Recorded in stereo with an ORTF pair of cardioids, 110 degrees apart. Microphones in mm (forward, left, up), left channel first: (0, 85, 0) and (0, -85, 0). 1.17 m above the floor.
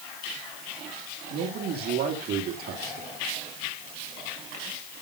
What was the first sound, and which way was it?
A man speaking, 65° right.